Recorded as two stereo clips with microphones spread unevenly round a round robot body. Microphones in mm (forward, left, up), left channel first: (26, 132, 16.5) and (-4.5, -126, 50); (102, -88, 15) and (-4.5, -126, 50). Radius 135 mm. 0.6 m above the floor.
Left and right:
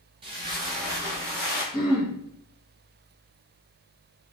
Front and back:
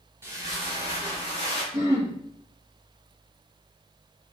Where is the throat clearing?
160° left, 1.5 m.